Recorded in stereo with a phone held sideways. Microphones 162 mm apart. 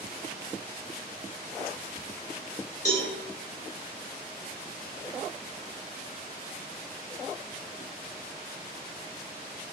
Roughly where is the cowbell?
Left.